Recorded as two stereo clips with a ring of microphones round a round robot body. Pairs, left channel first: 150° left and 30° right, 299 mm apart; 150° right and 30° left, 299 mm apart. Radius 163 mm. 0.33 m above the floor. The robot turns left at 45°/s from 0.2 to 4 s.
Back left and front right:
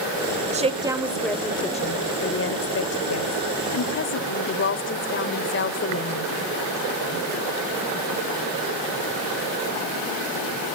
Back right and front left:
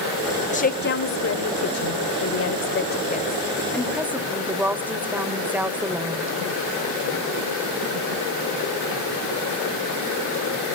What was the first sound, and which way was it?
A woman speaking, 90° right.